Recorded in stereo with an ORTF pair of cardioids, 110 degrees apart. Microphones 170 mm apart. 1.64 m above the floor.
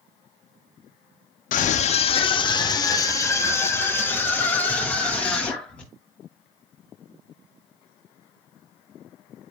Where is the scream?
55° left, 0.8 m; by 5.9 s 5° left, 3.5 m.